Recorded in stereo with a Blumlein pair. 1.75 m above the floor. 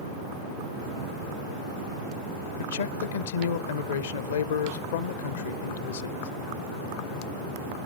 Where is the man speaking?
65° left, 0.7 m.